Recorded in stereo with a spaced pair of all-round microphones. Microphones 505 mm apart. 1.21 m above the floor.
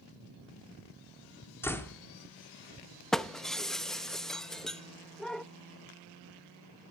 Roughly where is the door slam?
Centre.